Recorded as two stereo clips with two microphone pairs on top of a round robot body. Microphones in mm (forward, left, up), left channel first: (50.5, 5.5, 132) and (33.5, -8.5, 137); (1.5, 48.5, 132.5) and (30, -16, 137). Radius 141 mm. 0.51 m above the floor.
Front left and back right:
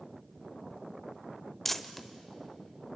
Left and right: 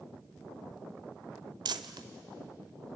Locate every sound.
1.6 s crumpling: 40° right, 0.9 m